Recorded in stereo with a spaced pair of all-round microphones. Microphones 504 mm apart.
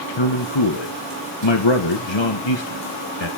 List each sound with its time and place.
0.2 s a man speaking: 65° left (ahead or behind), 1.5 m